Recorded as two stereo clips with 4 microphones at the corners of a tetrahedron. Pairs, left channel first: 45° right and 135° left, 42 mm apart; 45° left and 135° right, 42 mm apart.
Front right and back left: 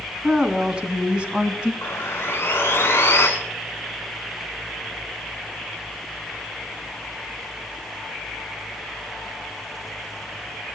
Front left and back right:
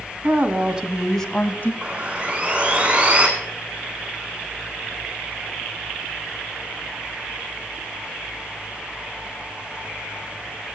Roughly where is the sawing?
Right.